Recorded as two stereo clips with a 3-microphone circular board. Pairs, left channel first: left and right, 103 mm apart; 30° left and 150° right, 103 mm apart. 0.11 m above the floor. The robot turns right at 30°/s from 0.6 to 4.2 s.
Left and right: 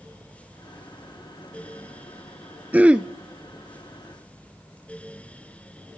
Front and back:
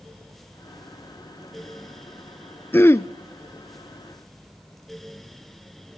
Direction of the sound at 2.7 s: 25° right.